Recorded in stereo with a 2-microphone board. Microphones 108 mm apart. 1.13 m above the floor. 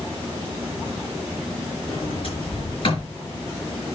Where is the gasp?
No gasp in this recording.